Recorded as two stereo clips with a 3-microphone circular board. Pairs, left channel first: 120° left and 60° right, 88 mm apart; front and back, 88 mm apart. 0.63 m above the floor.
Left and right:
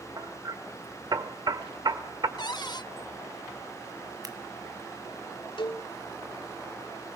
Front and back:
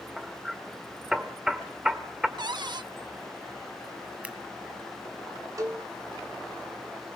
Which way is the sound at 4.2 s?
105° right.